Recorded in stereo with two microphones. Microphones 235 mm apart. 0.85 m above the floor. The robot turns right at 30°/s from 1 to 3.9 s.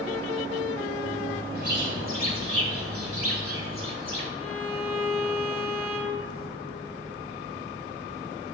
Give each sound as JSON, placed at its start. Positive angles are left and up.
{"t": 1.6, "sound": "a bird", "azimuth_deg": -135, "distance_m": 2.5}
{"t": 4.4, "sound": "a violin", "side_deg": 75, "distance_m": 1.7}